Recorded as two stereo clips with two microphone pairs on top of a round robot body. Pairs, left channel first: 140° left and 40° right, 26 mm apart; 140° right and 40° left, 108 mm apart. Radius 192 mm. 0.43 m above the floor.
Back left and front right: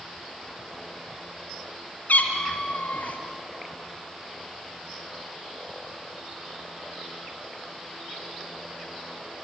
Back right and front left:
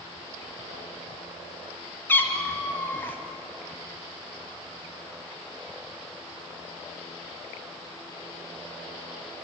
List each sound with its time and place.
2.1 s a cat meowing: 150° left, 1.8 m